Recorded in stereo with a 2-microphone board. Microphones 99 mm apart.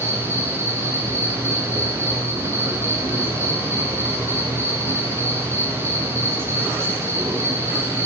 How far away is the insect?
About 6.5 m.